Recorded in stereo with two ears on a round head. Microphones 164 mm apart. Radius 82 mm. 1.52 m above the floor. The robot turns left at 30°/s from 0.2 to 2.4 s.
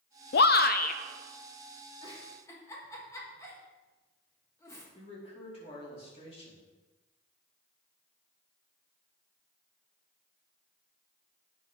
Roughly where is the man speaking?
Left.